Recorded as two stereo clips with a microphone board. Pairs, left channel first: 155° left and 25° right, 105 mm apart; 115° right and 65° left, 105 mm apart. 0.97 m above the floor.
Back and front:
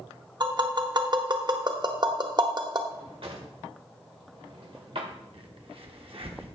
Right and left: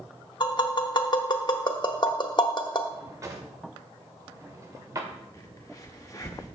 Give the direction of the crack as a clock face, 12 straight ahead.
2 o'clock.